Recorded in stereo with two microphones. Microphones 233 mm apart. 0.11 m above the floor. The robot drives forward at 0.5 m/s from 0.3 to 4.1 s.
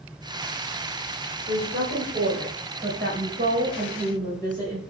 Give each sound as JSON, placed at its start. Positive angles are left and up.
{"t": 1.5, "sound": "a woman speaking", "side_deg": -45, "distance_m": 3.5}